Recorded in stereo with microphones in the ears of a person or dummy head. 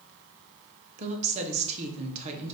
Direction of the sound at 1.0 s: 35° right (ahead or behind).